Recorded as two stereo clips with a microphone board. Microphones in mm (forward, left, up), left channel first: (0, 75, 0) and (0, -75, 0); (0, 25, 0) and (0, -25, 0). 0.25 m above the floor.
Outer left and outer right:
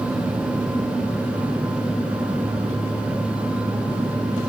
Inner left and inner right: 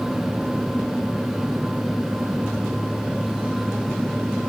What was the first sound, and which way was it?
Only background noise.